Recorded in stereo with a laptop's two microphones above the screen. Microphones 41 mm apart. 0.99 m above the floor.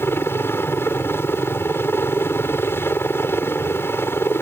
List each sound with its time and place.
0.0 s a helicopter: 65° left (ahead or behind)